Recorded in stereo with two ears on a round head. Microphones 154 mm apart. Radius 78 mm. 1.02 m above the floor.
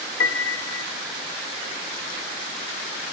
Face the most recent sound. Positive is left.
turn(degrees=75)  # may be behind; listen again after turning